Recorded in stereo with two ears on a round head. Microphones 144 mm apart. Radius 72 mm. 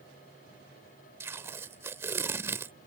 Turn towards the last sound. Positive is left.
turn(degrees=-15)  # may be behind; listen again after turning